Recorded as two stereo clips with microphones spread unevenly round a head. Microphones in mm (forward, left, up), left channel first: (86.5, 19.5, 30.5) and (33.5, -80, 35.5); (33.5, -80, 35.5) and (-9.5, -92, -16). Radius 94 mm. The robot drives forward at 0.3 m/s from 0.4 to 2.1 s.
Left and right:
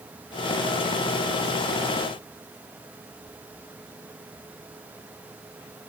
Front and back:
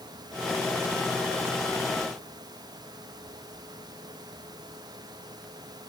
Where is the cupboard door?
No cupboard door in this recording.